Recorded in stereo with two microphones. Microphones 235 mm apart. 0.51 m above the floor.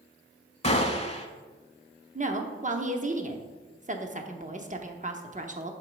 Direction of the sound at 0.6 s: 30° left (ahead or behind).